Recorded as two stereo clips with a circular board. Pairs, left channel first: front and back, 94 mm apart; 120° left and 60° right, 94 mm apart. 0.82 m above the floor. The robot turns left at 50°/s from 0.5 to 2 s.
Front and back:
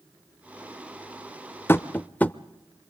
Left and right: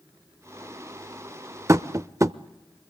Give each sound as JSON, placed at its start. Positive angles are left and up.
{"t": 1.7, "sound": "tapping", "azimuth_deg": -40, "distance_m": 0.5}